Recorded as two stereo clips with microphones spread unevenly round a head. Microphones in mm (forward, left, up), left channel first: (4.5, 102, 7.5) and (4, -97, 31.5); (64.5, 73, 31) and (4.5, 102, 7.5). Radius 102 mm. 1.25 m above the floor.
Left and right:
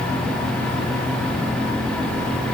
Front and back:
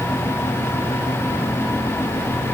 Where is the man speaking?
I don't hear a man speaking.